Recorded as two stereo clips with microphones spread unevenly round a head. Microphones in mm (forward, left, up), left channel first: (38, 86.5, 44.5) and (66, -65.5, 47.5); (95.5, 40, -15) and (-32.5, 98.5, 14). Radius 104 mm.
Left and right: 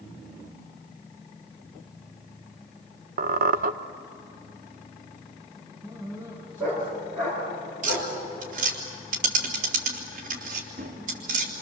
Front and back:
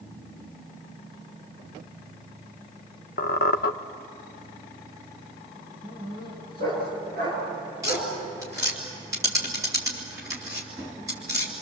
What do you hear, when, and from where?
3.2 s a squeak: 60° right, 0.8 m
5.8 s a dog barking: 160° right, 8.5 m
7.8 s tapping: 130° right, 3 m